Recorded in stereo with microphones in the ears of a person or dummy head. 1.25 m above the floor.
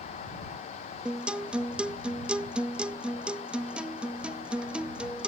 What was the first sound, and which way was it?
A guitar, 5° right (ahead or behind).